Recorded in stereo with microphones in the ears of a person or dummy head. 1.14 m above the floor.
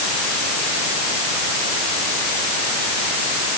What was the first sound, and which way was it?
Only background noise.